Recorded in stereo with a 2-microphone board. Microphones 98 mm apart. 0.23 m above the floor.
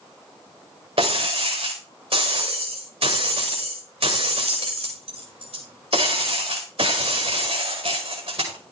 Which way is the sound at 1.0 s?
80° right.